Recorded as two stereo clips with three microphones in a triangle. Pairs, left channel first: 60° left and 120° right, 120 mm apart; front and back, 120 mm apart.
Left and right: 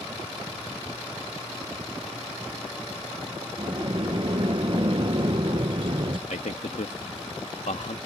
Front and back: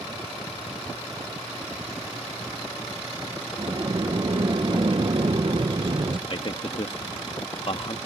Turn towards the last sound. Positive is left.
turn(degrees=45)